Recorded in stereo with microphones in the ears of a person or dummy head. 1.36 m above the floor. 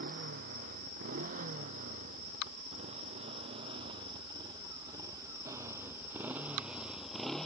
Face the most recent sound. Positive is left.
turn(degrees=5)  # may be behind; listen again after turning